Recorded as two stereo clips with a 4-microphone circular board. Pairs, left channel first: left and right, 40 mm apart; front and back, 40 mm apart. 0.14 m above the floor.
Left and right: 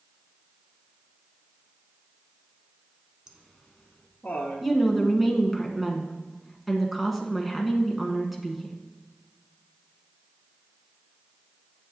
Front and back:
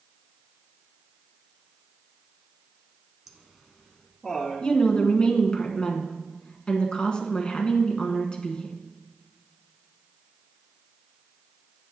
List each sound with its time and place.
3.3 s laughter: 115° right, 1.1 m; by 4.7 s 80° left, 1.6 m
4.6 s a woman speaking: 15° right, 1.2 m